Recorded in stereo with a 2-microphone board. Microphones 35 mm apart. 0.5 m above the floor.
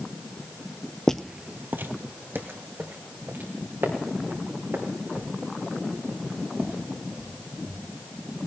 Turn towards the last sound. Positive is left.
turn(degrees=-60)  # may be behind; listen again after turning